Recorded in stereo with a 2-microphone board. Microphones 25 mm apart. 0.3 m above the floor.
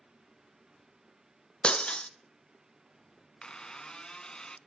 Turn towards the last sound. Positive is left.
turn(degrees=35)  # may be behind; listen again after turning